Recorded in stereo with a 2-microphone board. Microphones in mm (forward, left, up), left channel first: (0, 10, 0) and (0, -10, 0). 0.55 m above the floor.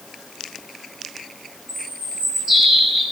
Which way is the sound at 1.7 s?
Centre (ahead or behind).